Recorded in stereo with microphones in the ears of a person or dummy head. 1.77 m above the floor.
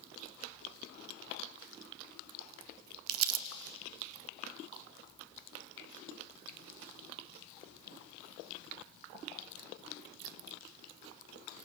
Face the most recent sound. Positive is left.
turn(degrees=-90)